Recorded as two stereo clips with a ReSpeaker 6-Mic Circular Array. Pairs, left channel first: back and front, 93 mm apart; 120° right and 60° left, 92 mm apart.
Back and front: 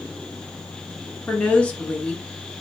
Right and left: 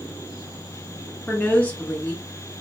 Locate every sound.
1.3 s a woman speaking: 145° right, 0.7 m